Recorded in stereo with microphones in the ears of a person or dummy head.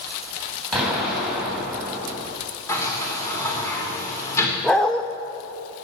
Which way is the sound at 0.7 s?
Centre (ahead or behind).